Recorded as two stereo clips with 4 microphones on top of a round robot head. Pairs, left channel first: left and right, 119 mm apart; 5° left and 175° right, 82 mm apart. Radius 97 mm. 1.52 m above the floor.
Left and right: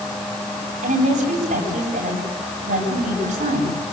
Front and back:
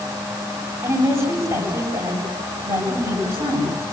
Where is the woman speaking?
115° right, 9.5 m.